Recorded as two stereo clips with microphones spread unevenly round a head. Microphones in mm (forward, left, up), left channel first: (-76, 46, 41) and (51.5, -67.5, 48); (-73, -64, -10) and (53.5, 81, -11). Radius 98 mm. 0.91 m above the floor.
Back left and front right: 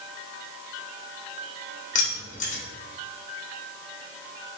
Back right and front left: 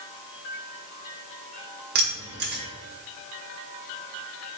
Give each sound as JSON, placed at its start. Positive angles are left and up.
{"t": 1.9, "sound": "keys jangling", "azimuth_deg": 90, "distance_m": 1.2}